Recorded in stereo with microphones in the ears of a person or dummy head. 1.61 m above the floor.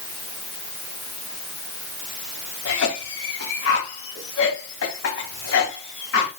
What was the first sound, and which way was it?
A cough, 80° left.